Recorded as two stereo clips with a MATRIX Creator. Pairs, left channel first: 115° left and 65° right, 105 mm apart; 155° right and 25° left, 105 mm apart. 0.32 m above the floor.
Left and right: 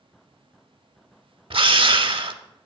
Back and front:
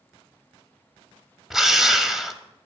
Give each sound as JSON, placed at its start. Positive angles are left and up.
{"t": 1.5, "sound": "a drill", "azimuth_deg": -65, "distance_m": 0.6}